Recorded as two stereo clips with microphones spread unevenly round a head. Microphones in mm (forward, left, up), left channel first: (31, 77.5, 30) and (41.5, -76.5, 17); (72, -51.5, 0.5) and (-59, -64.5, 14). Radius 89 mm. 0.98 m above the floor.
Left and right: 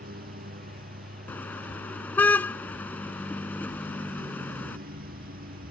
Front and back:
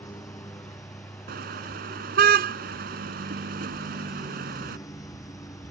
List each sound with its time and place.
0.0 s a lawn mower: 60° right
1.3 s a car horn: 175° left